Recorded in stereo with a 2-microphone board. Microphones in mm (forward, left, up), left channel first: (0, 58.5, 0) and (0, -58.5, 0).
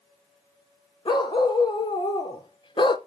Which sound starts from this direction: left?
A dog barking, at 1.1 s.